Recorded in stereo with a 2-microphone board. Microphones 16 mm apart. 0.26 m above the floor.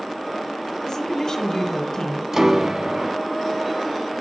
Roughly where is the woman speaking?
Left.